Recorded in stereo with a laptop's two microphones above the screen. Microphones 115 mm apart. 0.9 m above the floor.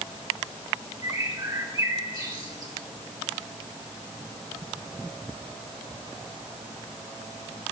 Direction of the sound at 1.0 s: 35° right (ahead or behind).